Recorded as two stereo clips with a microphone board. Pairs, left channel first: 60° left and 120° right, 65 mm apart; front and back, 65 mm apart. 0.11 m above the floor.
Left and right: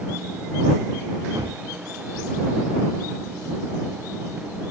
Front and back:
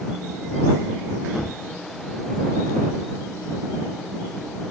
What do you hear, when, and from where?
1.4 s a gunshot: 90° right